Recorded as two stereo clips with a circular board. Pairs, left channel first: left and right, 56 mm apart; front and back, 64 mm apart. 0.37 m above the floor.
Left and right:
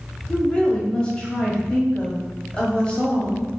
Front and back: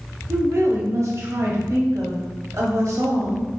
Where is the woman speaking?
160° left, 1.5 m.